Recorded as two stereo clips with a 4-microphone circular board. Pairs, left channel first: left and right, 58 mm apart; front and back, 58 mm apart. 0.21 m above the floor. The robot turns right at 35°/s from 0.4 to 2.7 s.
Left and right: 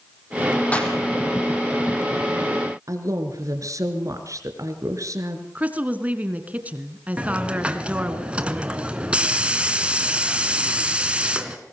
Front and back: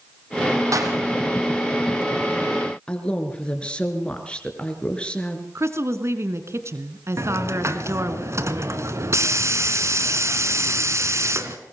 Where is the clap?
155° left, 5 m; by 0.9 s 165° left, 5 m.